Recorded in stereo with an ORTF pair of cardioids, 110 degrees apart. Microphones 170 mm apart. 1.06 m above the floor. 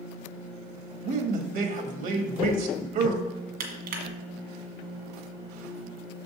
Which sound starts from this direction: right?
Crushing, at 3.6 s.